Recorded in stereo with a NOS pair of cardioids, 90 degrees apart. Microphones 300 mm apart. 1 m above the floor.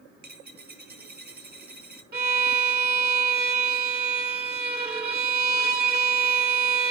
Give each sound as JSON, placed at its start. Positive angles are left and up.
{"t": 0.2, "sound": "a dropped coin", "azimuth_deg": -35, "distance_m": 5.0}
{"t": 2.1, "sound": "a violin", "azimuth_deg": -35, "distance_m": 2.5}